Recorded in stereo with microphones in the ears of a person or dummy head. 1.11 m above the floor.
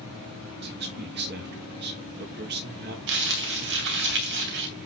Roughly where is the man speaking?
Right.